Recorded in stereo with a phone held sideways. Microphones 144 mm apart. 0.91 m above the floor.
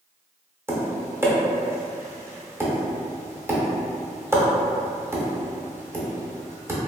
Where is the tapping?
20° right (ahead or behind), 0.6 m.